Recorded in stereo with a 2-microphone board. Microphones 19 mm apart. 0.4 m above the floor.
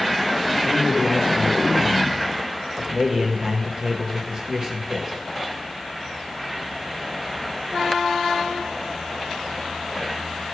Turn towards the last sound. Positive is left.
turn(degrees=-40)  # may be behind; listen again after turning